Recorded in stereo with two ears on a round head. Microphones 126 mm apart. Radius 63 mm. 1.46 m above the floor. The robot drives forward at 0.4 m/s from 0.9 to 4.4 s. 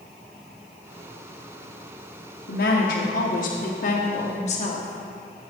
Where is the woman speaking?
85° left, 1.1 m; by 5.5 s 55° left (ahead or behind), 1.4 m.